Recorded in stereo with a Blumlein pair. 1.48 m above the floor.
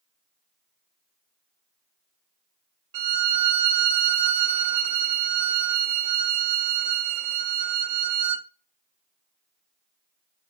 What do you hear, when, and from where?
2.9 s a violin: 50° right, 0.8 m